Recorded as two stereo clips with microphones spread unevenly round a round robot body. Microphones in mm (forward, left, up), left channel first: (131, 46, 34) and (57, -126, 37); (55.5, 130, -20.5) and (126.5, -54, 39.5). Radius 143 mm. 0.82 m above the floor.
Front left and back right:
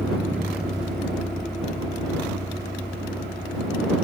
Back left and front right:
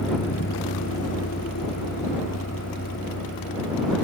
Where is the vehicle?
165° left; by 4.0 s 150° left.